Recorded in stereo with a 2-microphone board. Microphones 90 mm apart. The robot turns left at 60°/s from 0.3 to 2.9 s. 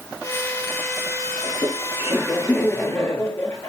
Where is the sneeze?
I don't hear a sneeze.